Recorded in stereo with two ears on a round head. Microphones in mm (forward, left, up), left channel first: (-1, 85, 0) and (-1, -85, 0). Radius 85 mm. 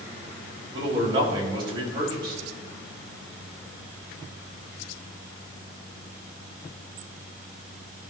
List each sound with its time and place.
0.7 s a man speaking: 30° right (ahead or behind), 3 m